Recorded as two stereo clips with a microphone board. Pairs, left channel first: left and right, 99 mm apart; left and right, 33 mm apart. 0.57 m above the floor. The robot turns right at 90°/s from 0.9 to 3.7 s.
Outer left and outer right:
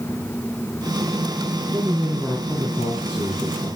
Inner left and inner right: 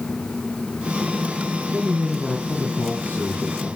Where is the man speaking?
40° right, 5 m; by 3.7 s 135° left, 5 m.